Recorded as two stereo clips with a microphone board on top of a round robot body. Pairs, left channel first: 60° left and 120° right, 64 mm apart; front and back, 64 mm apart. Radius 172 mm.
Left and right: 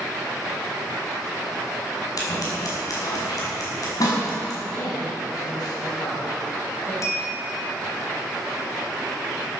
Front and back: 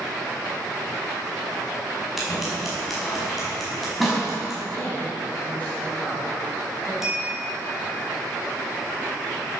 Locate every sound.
2.2 s scissors: 90° left, 5.5 m
4.7 s a woman speaking: 65° left, 3.5 m
7.0 s a bell: 95° left, 3.5 m